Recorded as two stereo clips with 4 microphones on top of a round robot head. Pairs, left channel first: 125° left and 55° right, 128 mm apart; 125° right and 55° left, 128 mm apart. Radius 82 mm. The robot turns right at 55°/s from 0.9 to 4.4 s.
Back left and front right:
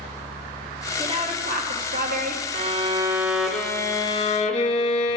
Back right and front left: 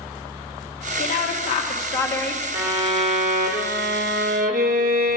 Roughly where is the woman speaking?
Right.